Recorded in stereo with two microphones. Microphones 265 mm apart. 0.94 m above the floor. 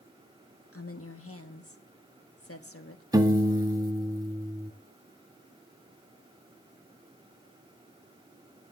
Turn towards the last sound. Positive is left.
turn(degrees=-15)  # may be behind; listen again after turning